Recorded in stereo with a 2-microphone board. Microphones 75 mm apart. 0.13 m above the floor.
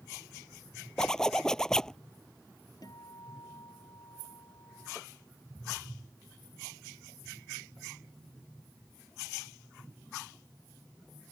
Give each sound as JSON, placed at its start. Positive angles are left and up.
{"t": 1.0, "sound": "a zipper", "side_deg": 10}
{"t": 2.8, "sound": "a guitar", "side_deg": 60}